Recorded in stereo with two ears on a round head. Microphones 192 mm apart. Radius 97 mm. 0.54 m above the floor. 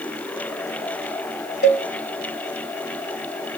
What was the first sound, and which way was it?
A cowbell, 50° left (ahead or behind).